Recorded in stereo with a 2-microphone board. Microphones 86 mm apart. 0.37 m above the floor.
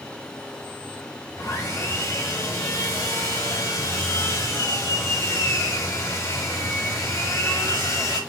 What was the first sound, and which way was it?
Sawing, 40° left (ahead or behind).